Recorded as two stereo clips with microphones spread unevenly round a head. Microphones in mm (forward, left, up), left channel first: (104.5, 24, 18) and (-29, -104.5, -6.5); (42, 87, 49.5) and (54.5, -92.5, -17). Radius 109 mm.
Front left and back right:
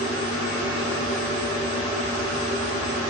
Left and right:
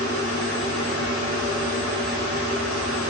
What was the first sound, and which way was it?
Only background noise.